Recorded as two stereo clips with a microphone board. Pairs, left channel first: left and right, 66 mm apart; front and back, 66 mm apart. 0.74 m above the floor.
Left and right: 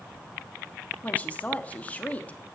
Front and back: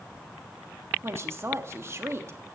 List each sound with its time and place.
1.0 s a woman speaking: 150° left, 1.2 m